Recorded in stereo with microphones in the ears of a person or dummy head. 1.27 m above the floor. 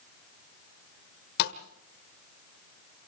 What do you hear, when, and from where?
1.4 s a thud: 60° left (ahead or behind), 1.6 m